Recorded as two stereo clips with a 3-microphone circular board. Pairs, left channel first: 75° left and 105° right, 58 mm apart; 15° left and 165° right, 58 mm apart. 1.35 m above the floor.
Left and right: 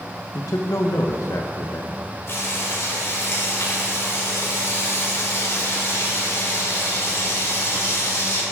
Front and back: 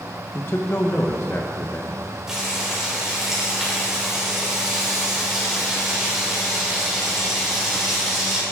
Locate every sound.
0.3 s a man speaking: 65° left, 1.1 m
2.3 s frying: 115° left, 5 m